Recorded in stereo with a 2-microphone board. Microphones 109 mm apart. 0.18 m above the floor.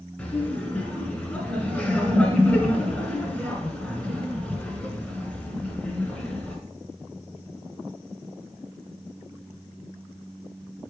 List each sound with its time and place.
0.2 s laughter: 15° left (ahead or behind), 1.8 m